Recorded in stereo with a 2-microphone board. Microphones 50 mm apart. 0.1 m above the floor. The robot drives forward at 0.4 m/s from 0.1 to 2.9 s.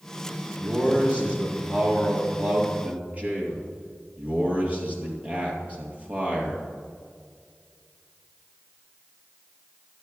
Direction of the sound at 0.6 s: 25° right (ahead or behind).